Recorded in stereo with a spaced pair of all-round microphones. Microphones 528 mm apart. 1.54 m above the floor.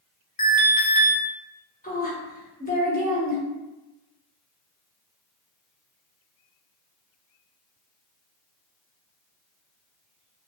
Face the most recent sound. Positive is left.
turn(degrees=15)  # may be behind; listen again after turning